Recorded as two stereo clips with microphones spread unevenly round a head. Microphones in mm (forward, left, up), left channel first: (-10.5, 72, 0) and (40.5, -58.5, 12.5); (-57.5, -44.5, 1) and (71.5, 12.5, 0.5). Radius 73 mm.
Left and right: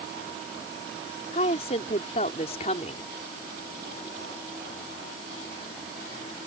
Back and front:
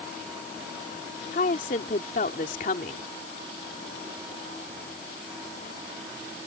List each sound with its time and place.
1.3 s a woman speaking: 165° left